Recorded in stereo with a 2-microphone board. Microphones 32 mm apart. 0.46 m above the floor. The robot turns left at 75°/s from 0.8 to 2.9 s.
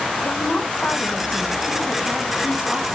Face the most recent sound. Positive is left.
turn(degrees=-75)